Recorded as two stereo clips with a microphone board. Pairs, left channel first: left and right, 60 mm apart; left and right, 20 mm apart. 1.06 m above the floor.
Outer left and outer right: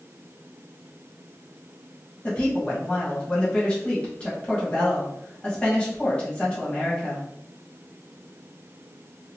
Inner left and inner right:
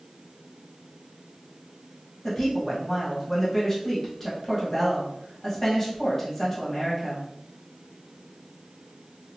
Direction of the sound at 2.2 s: 20° left (ahead or behind).